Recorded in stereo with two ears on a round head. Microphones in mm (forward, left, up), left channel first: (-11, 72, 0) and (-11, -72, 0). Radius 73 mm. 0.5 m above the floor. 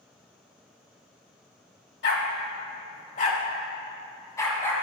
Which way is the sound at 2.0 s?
80° left.